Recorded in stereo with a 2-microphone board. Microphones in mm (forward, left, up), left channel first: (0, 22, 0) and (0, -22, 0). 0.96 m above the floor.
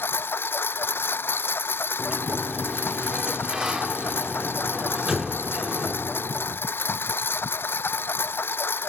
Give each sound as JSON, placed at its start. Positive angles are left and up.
{"t": 0.0, "sound": "a lawn mower", "side_deg": 50}
{"t": 2.0, "sound": "a sliding door", "side_deg": -10}